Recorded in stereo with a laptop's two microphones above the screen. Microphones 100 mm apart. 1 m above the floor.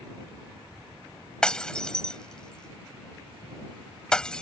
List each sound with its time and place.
1.4 s breaking glass: 5° left (ahead or behind)